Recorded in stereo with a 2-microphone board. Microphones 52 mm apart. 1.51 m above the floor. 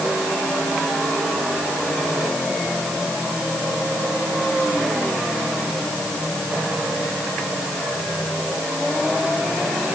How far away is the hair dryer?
No hair dryer in this recording.